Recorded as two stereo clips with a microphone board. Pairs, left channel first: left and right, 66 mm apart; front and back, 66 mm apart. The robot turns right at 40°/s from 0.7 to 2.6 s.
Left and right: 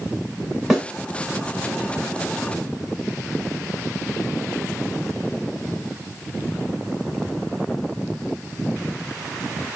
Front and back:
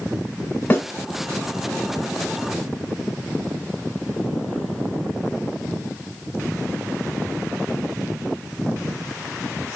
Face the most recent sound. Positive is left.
turn(degrees=55)